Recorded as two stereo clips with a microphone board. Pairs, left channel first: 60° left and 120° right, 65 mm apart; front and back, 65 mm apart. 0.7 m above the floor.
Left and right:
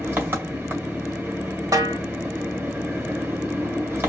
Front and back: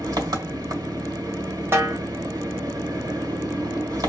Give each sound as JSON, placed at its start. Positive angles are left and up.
{"t": 0.0, "sound": "an engine running", "azimuth_deg": -175, "distance_m": 1.7}
{"t": 1.7, "sound": "a snare drum", "azimuth_deg": -130, "distance_m": 1.4}